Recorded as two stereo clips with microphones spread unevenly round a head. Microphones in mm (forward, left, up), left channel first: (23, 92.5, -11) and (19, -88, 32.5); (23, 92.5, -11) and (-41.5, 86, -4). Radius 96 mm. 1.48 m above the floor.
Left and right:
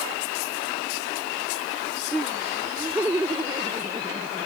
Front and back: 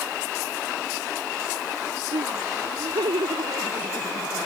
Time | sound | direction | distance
2.1 | laughter | 175° right | ?